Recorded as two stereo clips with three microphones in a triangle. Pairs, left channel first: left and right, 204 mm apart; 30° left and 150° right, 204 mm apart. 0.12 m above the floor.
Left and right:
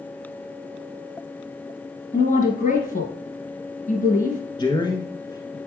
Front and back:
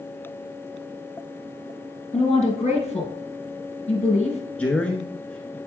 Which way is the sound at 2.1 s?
70° left.